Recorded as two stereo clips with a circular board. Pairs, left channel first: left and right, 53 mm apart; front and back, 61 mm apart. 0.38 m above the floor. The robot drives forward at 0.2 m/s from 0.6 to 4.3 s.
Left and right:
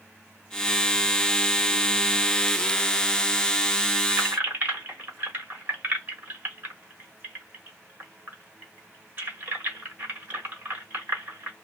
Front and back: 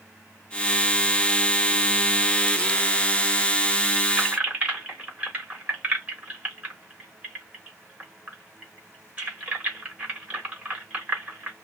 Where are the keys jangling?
120° right, 1.0 m; by 11.5 s 125° right, 1.0 m.